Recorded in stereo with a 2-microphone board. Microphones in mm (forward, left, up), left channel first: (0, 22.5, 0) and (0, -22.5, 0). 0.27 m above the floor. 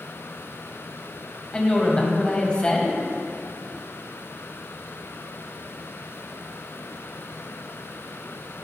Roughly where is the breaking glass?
No breaking glass in this recording.